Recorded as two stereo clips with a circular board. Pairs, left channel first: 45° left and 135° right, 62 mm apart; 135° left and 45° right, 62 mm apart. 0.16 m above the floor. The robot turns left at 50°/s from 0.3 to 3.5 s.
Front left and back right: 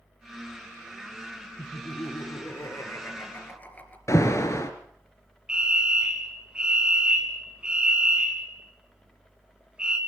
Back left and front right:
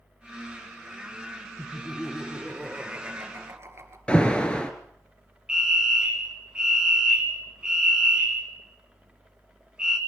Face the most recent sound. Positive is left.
turn(degrees=-90)